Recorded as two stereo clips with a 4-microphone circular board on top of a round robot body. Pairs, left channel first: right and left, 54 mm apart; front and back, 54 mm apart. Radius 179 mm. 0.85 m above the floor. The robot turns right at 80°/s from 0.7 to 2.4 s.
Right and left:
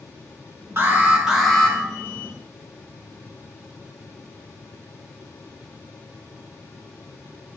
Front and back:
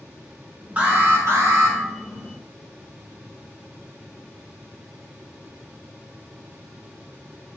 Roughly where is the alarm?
Behind left.